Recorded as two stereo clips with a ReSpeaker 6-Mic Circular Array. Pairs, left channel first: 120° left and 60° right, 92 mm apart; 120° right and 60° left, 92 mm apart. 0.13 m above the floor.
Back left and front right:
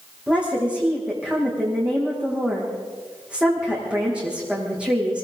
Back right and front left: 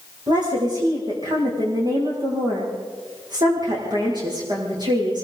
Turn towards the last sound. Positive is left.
turn(degrees=20)